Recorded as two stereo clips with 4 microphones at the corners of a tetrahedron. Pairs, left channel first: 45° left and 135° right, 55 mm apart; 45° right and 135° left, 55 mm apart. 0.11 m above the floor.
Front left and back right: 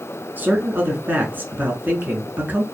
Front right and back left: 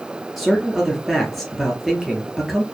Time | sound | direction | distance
0.4 | a man speaking | 135° right | 1.4 m